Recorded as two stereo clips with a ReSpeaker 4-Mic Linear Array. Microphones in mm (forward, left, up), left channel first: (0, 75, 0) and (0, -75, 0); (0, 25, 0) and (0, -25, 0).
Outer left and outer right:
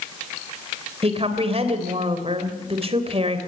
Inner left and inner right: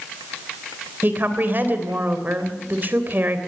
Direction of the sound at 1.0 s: 45° right (ahead or behind).